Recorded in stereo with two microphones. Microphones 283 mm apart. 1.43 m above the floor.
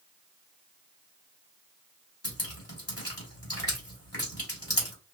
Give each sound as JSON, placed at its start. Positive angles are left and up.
{"t": 2.2, "sound": "dripping", "side_deg": 55, "distance_m": 2.5}